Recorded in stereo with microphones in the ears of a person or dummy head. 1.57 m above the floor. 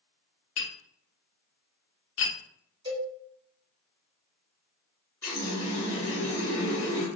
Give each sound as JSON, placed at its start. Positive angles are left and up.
{"t": 0.6, "sound": "tapping", "side_deg": 70, "distance_m": 0.9}
{"t": 2.9, "sound": "a cowbell", "side_deg": -25, "distance_m": 1.4}
{"t": 5.2, "sound": "a running tap", "side_deg": 15, "distance_m": 1.0}